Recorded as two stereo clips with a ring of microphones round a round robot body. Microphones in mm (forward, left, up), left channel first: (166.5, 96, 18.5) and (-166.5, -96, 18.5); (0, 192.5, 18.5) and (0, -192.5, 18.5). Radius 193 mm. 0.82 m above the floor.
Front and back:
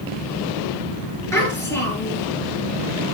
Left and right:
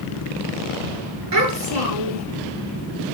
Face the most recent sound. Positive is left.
turn(degrees=-55)